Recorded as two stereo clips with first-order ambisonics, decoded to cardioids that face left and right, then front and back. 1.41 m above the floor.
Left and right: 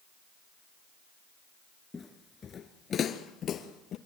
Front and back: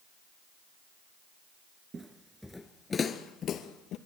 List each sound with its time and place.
1.9 s footsteps: 145° left, 1.4 m; by 4.0 s 40° left, 2.5 m